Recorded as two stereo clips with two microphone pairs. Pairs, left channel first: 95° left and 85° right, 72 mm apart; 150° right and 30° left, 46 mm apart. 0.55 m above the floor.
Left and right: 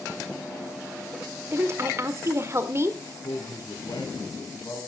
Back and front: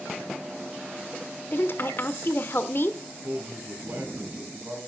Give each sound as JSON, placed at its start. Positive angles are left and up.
{"t": 1.5, "sound": "a woman speaking", "azimuth_deg": -125, "distance_m": 1.4}
{"t": 3.2, "sound": "a man speaking", "azimuth_deg": 75, "distance_m": 5.0}